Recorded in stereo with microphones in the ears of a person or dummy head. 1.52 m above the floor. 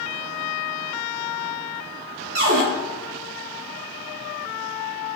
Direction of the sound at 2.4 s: 45° right (ahead or behind).